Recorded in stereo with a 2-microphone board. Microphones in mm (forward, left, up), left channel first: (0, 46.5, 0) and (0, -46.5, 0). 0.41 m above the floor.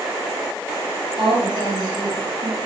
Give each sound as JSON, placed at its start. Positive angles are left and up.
{"t": 1.2, "sound": "a woman speaking", "side_deg": -65, "distance_m": 6.0}